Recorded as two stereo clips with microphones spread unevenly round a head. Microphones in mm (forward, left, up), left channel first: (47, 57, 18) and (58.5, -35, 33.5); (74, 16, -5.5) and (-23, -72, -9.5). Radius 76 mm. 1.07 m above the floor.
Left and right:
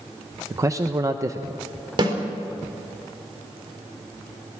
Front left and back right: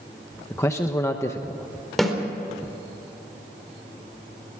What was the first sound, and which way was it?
A man speaking, 25° right.